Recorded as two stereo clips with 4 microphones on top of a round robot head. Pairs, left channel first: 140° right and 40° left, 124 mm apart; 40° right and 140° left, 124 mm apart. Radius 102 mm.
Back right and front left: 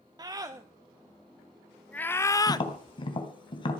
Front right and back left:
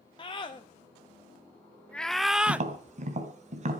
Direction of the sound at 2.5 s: 170° left.